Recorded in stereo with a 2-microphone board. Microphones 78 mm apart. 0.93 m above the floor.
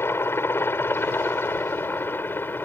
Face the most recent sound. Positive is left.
turn(degrees=25)  # may be behind; listen again after turning